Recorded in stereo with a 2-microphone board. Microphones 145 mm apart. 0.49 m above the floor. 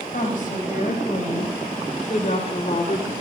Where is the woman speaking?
65° left (ahead or behind), 3.5 m; by 3.1 s 45° left (ahead or behind), 1.7 m.